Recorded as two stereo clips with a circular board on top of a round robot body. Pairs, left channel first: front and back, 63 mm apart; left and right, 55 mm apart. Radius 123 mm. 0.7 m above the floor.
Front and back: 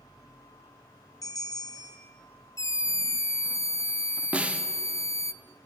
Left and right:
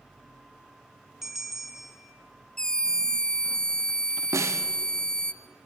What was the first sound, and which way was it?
A bell, 5° right.